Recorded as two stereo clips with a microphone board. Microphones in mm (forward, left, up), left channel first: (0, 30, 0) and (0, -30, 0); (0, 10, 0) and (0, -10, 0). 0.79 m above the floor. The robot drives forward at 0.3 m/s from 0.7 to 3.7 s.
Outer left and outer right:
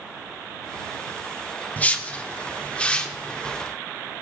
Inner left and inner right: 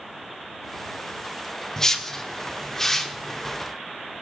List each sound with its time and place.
1.8 s a whoosh: 30° left (ahead or behind), 1.2 m; by 3.6 s 20° left (ahead or behind), 1.7 m